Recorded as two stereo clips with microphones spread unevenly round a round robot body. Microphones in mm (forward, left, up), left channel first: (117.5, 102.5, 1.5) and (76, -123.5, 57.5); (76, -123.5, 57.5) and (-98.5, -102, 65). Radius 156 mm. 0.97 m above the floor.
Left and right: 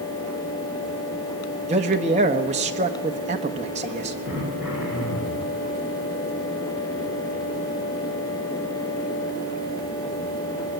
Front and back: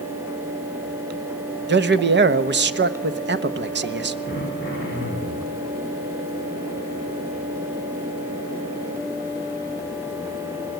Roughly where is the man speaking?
Behind.